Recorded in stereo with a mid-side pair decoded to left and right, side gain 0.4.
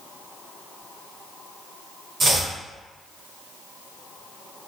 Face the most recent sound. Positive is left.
turn(degrees=-50)